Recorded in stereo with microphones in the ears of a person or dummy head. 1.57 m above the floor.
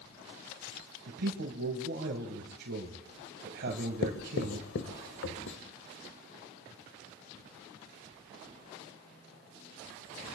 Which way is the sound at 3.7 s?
60° left (ahead or behind).